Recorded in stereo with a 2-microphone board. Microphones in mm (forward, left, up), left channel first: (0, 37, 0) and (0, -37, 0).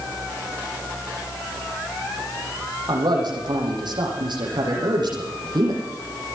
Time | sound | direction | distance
2.9 | a man speaking | 75° right (ahead or behind) | 9.5 m